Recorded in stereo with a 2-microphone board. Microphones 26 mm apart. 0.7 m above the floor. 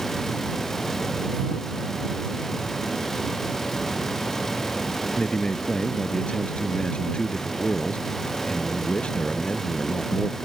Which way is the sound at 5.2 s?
45° left (ahead or behind).